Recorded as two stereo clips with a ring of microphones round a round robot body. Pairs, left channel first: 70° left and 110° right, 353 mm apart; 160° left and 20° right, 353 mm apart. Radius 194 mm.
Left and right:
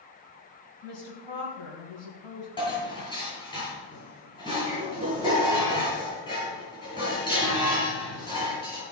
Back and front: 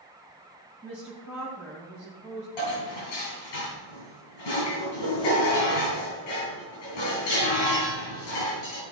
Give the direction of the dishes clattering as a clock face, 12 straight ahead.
7 o'clock.